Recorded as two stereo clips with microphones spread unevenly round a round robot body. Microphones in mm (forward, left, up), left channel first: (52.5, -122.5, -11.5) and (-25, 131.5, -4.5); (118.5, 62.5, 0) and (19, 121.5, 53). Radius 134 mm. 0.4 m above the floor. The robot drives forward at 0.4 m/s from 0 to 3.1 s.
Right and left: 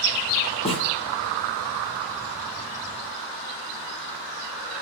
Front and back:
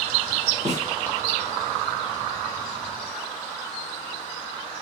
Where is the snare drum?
145° right, 7.5 m.